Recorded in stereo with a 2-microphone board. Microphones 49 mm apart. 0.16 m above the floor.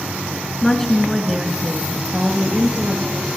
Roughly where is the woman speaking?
Centre.